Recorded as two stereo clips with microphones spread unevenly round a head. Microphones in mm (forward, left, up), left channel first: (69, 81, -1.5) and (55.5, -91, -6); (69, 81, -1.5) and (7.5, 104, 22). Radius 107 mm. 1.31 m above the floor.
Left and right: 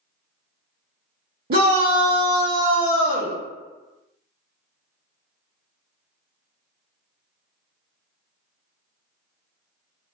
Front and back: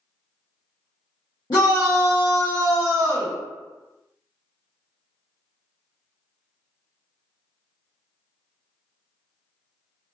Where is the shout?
60° right, 0.8 m.